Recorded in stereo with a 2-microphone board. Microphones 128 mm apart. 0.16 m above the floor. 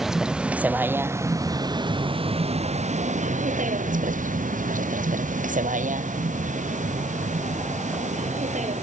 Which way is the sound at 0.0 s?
Centre (ahead or behind).